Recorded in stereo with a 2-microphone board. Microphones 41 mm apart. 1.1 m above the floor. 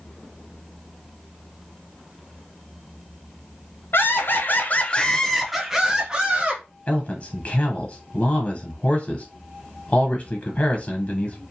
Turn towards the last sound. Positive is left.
turn(degrees=30)  # may be behind; listen again after turning